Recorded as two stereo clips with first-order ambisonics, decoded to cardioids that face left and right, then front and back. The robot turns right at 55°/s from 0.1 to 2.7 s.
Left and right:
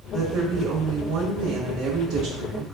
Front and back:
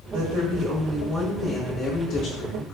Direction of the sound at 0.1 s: 155° right.